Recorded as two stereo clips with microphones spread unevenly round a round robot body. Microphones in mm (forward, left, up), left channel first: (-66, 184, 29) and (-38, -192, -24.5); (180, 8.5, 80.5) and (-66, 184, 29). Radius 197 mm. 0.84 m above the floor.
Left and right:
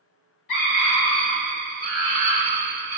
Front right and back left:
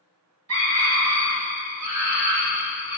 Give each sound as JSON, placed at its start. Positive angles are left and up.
{"t": 0.5, "sound": "a scream", "azimuth_deg": 130, "distance_m": 1.7}